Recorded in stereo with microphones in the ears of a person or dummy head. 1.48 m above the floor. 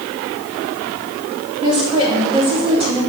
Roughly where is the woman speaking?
Right.